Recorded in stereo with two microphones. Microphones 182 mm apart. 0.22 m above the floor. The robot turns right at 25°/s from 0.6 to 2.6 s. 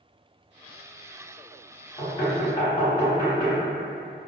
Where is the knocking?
30° left (ahead or behind), 1.4 m.